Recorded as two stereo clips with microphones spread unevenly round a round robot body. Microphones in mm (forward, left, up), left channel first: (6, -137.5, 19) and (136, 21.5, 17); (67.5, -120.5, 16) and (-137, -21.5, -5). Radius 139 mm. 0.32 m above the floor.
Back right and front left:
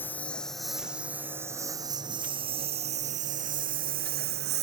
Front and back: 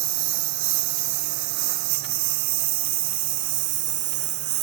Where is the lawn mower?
145° left; by 4.6 s 105° left.